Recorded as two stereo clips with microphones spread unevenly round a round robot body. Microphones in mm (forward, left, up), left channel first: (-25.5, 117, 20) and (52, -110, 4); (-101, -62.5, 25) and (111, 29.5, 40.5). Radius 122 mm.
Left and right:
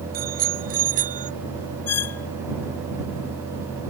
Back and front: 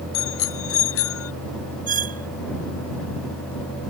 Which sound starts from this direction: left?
A squeak, at 1.9 s.